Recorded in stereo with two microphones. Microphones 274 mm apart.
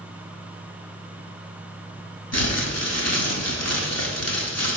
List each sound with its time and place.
2.3 s crumpling: 65° left (ahead or behind), 0.9 m